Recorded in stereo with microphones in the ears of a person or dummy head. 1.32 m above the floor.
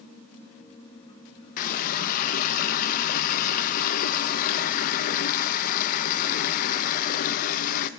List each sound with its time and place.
1.6 s a running tap: 50° left (ahead or behind), 0.7 m